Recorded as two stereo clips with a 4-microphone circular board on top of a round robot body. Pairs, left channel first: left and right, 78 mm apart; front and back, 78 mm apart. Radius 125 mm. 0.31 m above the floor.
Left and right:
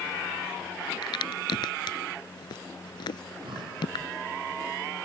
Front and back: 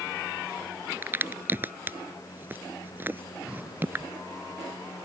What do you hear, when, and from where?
1.0 s a crack: 115° left
3.2 s breathing: 100° right